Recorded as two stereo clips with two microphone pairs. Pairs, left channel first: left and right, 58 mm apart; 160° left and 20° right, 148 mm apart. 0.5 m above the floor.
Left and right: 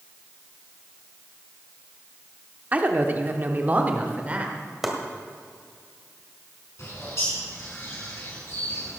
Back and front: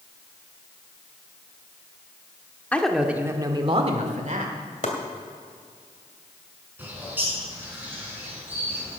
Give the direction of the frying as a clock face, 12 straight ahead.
No frying in this recording.